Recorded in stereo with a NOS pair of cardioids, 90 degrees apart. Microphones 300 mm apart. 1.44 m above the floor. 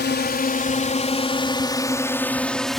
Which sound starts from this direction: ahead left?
A drone, at 0.0 s.